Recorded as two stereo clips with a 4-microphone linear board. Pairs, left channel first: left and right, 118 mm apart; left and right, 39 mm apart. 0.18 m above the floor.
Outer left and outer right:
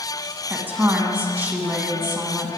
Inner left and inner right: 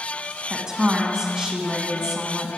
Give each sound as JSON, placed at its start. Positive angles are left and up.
{"t": 0.5, "sound": "a woman speaking", "side_deg": -15, "distance_m": 1.5}